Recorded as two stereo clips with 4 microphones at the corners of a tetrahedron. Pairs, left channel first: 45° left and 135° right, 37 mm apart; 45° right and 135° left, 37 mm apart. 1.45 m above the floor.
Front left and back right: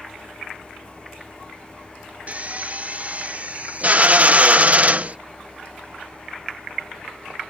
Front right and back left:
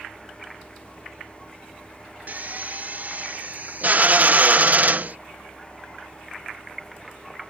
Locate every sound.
2.3 s a drill: 175° left